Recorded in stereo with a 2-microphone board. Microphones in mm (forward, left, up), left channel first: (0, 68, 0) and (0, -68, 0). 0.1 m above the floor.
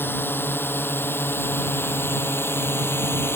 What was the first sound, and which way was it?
A drone, 15° left (ahead or behind).